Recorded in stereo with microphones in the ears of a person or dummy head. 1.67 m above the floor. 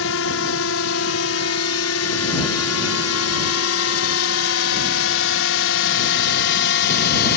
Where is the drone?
65° left (ahead or behind); by 7.4 s 55° left (ahead or behind).